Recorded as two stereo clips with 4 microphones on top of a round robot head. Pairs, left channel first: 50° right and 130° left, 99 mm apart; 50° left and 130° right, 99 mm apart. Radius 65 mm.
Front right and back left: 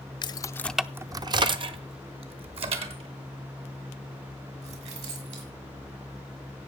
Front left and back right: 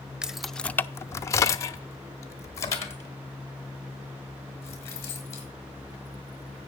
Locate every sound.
0.2 s keys jangling: 50° right, 0.7 m; by 5.5 s 115° left, 5 m